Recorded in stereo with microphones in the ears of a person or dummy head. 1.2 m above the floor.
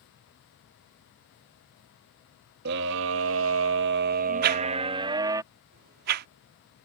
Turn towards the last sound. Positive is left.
turn(degrees=-55)  # may be behind; listen again after turning